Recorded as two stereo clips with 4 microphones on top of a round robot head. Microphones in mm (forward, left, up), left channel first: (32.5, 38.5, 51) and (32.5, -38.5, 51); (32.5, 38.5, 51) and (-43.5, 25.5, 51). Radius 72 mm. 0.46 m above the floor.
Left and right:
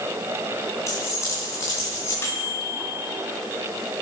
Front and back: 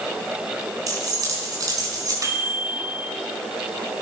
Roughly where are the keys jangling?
Behind left.